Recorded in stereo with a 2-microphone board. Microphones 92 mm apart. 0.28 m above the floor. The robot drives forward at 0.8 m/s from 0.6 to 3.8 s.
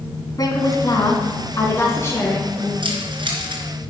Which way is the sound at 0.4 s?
45° left (ahead or behind).